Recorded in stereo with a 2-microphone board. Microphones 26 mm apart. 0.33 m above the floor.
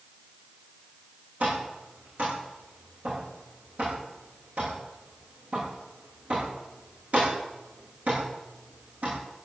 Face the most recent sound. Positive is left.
turn(degrees=-55)  # may be behind; listen again after turning